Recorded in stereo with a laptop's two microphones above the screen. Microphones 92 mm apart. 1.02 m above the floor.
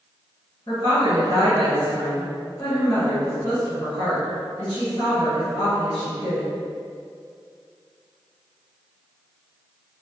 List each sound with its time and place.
0.7 s a woman speaking: 55° left (ahead or behind), 1.6 m